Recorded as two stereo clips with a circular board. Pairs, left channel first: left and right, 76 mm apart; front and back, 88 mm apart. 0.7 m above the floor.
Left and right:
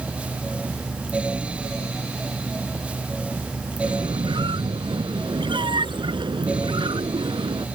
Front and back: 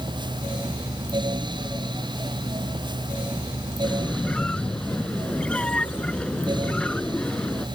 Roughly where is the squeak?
Right.